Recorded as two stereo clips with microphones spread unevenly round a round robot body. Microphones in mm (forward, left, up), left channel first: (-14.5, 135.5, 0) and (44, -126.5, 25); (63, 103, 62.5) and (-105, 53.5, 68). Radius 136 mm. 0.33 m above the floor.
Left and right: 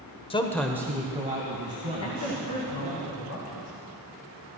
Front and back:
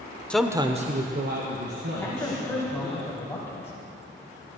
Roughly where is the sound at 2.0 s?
Left.